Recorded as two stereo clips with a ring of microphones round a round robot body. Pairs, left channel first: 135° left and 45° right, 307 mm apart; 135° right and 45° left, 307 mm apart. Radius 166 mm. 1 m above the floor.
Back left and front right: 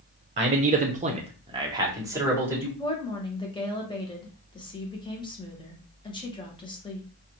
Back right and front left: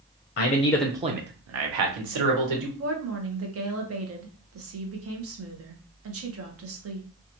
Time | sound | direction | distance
0.4 | a man speaking | 105° right | 0.6 m
2.8 | a woman speaking | 65° left | 1.0 m